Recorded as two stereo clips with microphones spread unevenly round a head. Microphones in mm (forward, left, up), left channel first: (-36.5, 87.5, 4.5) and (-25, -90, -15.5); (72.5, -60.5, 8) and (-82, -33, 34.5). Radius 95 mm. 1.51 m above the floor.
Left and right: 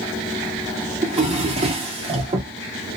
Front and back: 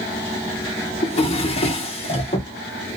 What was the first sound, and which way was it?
A drawer, 45° right.